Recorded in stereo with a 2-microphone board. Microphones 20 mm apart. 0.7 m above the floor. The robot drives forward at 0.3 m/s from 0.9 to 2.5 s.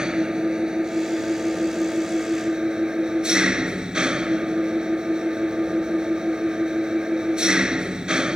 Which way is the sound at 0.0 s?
45° right (ahead or behind).